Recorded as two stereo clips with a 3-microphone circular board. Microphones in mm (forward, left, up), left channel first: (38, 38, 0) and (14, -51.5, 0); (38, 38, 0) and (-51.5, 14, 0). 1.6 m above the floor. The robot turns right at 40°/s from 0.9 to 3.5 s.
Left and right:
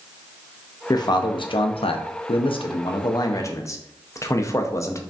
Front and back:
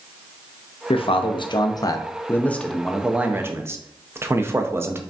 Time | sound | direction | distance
0.9 | a man speaking | 25° left | 0.5 m